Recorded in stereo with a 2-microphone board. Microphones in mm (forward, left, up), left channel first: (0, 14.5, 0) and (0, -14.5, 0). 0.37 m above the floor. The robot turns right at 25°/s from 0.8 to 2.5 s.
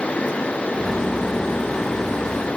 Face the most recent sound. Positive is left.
No sound to turn to.